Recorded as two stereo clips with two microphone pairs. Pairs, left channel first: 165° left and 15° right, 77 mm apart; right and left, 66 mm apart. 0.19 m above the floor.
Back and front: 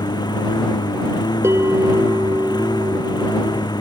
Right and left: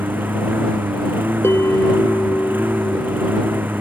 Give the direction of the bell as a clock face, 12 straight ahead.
2 o'clock.